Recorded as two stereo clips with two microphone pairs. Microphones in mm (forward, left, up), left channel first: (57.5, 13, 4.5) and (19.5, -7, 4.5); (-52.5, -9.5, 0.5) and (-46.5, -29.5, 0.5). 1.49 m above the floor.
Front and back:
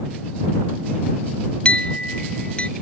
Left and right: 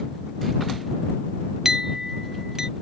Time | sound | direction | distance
1.6 | a clink | 20° right | ?